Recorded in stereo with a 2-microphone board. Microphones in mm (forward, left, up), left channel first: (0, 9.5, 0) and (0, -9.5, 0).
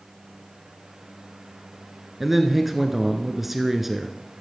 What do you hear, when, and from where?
2.2 s a man speaking: 10° right (ahead or behind), 1.2 m